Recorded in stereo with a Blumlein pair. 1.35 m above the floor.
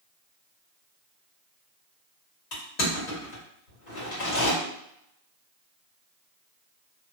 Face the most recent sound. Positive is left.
turn(degrees=40)